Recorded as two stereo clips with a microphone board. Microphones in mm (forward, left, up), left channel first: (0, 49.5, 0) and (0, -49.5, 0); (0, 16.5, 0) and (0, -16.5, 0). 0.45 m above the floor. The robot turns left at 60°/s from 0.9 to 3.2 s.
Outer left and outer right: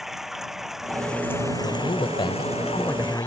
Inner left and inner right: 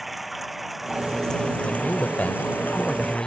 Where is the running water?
175° right; by 3.3 s 45° left.